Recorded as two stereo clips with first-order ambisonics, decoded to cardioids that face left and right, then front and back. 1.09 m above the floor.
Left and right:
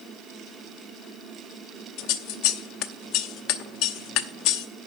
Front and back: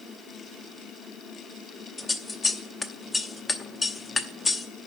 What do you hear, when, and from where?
2.0 s scissors: 75° left, 0.8 m